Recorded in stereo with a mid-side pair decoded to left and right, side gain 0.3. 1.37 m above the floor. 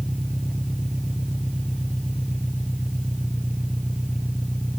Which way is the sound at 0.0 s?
5° right.